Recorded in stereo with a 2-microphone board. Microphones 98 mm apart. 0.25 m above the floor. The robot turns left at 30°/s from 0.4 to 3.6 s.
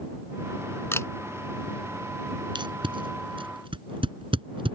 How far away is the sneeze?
No sneeze in this recording.